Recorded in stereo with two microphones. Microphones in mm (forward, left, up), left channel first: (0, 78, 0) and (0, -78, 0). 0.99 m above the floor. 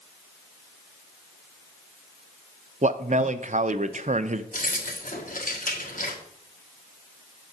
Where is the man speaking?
50° right (ahead or behind), 0.5 m.